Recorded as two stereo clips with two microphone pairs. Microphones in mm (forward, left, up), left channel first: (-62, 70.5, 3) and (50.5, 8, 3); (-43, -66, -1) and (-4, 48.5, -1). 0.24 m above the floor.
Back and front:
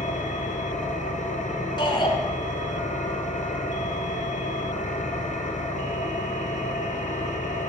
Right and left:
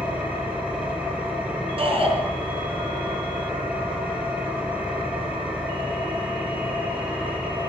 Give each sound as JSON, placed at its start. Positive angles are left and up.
{"t": 0.0, "sound": "an engine running", "azimuth_deg": 150, "distance_m": 3.5}
{"t": 1.8, "sound": "a shout", "azimuth_deg": 100, "distance_m": 3.5}